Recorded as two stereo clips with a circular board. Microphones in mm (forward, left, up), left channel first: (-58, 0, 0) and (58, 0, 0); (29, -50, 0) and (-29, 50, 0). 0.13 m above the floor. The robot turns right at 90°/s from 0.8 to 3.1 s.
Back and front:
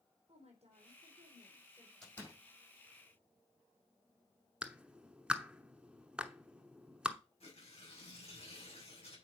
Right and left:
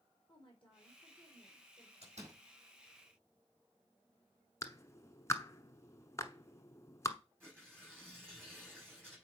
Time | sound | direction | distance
0.3 | a woman speaking | 20° right | 4.5 m
2.0 | a door slam | 95° left | 5.5 m
4.6 | a clap | 75° right | 0.9 m
7.4 | tearing paper | 165° right | 6 m